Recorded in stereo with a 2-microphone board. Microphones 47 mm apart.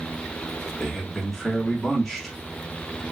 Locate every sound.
0.8 s a man speaking: 5° left (ahead or behind), 1.1 m